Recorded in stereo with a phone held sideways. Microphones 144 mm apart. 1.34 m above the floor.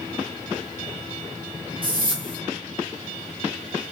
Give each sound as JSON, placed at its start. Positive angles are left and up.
{"t": 1.8, "sound": "a whoosh", "side_deg": -35, "distance_m": 1.2}